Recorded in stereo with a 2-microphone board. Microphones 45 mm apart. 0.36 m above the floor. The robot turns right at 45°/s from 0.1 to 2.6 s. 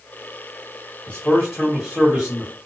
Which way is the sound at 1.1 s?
145° left.